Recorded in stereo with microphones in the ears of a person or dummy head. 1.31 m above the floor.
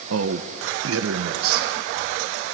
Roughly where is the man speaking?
Right.